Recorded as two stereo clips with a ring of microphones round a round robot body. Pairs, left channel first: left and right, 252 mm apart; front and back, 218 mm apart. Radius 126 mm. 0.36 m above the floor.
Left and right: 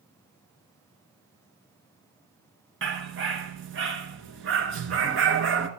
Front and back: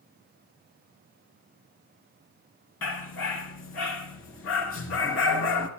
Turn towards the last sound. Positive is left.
turn(degrees=-45)